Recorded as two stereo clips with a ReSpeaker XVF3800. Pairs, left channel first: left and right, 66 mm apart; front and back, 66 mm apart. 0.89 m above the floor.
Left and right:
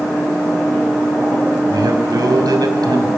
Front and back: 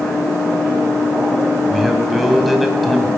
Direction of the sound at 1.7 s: 90° right.